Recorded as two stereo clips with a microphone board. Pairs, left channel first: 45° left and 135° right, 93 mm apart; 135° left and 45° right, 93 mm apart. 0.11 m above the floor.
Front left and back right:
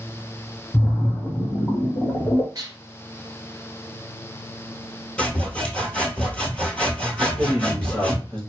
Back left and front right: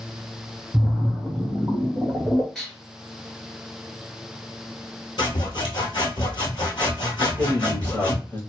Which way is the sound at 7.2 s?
110° left.